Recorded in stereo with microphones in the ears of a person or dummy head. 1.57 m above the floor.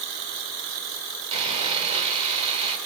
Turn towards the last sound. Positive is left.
turn(degrees=-35)  # may be behind; listen again after turning